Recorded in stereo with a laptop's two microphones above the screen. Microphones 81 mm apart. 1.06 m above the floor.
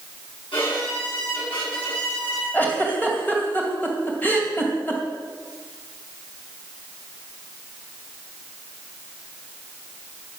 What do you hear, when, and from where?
0.5 s a violin: 80° left, 8 m
2.5 s a giggle: 20° left (ahead or behind), 2.5 m